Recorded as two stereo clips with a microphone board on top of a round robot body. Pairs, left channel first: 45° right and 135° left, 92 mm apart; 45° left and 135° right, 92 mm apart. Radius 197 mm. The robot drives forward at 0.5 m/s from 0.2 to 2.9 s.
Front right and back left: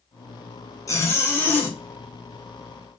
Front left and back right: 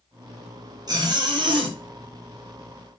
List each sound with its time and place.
0.9 s a zipper: 95° right, 1.5 m; by 1.8 s 115° right, 1.6 m